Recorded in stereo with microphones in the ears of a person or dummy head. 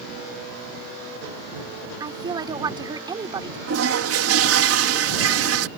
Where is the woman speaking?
20° right (ahead or behind).